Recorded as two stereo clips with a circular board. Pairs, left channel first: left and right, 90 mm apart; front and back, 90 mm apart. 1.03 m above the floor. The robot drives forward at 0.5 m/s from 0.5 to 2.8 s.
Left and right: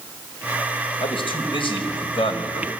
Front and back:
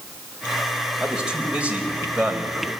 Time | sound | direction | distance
1.0 | a man speaking | 100° left | 4.5 m